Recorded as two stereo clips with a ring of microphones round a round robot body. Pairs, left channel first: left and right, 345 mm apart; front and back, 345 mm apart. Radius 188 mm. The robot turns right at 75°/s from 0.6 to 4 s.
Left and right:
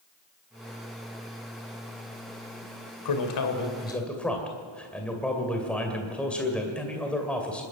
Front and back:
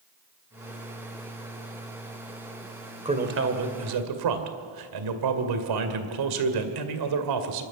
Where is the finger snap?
No finger snap in this recording.